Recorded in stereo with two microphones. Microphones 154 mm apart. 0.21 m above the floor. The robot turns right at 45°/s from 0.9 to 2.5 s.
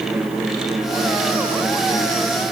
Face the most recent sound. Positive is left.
No sound to turn to.